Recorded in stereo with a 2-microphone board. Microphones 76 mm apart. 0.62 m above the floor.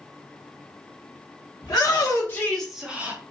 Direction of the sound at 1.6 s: 50° left (ahead or behind).